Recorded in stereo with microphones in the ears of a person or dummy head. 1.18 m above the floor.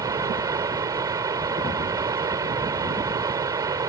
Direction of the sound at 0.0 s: 15° right (ahead or behind).